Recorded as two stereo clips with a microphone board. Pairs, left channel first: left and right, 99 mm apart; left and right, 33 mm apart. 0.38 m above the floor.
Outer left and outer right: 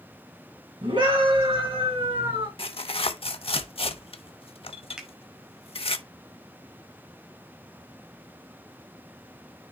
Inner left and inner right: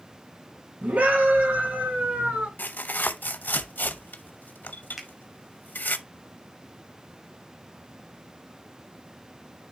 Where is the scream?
60° right (ahead or behind), 3.5 m; by 2.5 s 65° right (ahead or behind), 4.5 m.